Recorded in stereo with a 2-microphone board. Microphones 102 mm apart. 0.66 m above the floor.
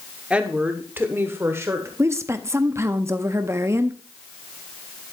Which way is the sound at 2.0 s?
25° right (ahead or behind).